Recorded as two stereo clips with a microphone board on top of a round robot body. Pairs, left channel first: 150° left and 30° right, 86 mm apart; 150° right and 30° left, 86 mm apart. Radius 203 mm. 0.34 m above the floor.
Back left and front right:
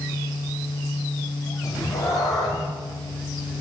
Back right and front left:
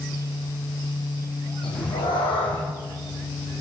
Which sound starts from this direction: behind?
A cat meowing, at 1.6 s.